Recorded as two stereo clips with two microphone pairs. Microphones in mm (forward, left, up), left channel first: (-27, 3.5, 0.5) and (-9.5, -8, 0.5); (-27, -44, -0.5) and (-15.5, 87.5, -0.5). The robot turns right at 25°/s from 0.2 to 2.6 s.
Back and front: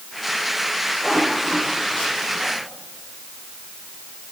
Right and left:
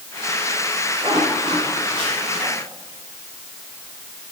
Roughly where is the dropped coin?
I don't hear a dropped coin.